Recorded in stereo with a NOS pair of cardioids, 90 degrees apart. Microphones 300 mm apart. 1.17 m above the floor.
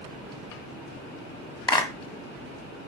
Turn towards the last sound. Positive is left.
turn(degrees=15)